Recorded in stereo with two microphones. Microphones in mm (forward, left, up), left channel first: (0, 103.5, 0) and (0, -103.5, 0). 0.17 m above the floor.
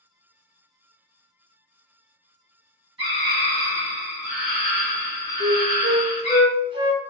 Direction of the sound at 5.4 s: 25° right (ahead or behind).